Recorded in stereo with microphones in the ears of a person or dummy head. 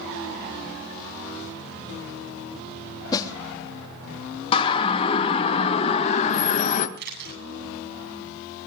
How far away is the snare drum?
About 3 m.